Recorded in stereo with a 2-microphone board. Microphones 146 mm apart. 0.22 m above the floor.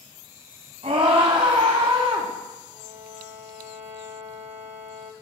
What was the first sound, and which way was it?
A scream, 40° right (ahead or behind).